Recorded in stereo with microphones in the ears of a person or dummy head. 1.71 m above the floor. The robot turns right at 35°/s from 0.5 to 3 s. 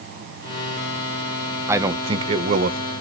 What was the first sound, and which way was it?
A man speaking, 170° right.